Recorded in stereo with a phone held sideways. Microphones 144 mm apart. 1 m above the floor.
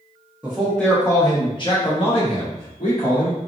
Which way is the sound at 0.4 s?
10° right (ahead or behind).